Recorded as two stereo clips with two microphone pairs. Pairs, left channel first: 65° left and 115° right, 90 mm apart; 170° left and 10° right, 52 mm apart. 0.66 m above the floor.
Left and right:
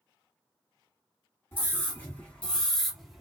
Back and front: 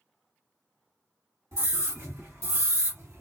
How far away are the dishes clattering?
No dishes clattering in this recording.